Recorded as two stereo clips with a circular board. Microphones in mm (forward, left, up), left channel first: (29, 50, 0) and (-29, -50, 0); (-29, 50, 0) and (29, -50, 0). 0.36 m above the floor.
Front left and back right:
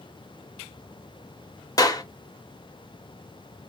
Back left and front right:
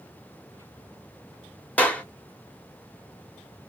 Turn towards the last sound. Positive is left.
turn(degrees=55)